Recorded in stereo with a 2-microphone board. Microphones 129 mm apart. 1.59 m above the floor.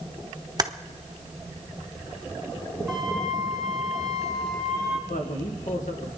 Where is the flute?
Centre (ahead or behind), 3 m.